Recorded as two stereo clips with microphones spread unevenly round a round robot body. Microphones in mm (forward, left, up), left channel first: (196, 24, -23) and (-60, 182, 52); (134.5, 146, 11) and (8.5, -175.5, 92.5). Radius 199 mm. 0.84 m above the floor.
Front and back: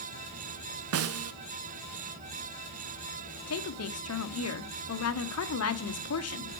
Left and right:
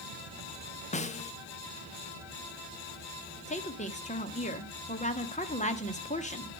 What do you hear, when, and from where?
0.9 s a snare drum: 110° left, 0.6 m
3.5 s a woman speaking: straight ahead, 1.3 m